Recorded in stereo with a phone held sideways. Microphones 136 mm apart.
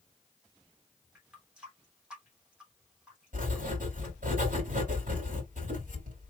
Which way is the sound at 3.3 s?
80° right.